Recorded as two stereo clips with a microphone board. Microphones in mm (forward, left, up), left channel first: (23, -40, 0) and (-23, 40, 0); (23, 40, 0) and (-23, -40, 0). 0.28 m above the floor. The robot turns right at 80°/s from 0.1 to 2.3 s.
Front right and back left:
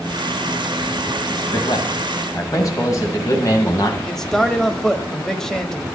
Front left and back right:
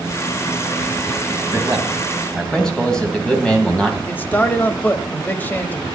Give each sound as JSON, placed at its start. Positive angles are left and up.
{"t": 1.5, "sound": "a man speaking", "azimuth_deg": -80, "distance_m": 2.0}
{"t": 4.1, "sound": "a man speaking", "azimuth_deg": 20, "distance_m": 1.0}